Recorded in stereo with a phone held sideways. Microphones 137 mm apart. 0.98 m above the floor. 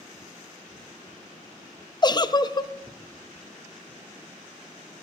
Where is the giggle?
30° left (ahead or behind), 0.6 m.